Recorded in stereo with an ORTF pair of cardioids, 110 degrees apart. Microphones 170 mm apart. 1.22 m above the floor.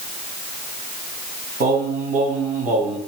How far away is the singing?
About 3 m.